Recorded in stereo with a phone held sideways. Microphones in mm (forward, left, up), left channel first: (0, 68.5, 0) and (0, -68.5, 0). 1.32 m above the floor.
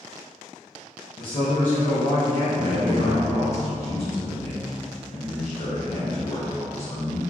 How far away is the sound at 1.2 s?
About 0.6 m.